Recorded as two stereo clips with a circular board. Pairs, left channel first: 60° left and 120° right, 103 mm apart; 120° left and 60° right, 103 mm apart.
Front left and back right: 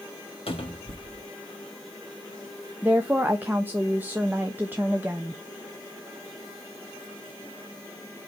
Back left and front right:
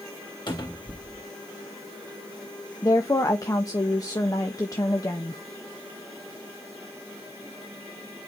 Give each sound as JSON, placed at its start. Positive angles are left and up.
{"t": 0.5, "sound": "a cupboard door", "azimuth_deg": 80, "distance_m": 2.0}
{"t": 2.8, "sound": "a woman speaking", "azimuth_deg": 170, "distance_m": 0.9}